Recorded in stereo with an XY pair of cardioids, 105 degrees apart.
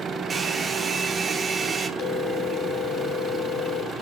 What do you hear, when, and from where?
0.3 s a hair dryer: 30° right, 1.6 m
2.0 s a phone ringing: 65° left, 3 m